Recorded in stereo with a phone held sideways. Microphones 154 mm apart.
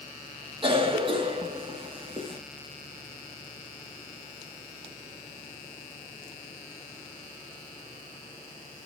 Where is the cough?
35° right (ahead or behind), 3 m.